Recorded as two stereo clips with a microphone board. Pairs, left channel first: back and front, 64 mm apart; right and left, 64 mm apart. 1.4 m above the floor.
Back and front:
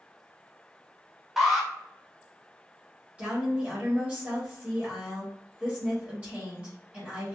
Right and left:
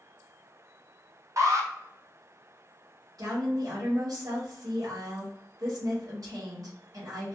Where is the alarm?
85° left, 0.7 m.